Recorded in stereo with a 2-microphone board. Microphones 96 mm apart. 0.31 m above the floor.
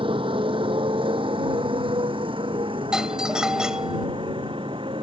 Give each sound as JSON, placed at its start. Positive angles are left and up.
{"t": 0.0, "sound": "a motorcycle", "side_deg": -65}
{"t": 2.9, "sound": "a doorbell", "side_deg": -5}